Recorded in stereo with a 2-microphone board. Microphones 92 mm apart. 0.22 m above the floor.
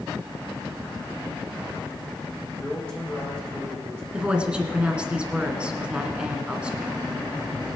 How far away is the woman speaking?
About 2.5 m.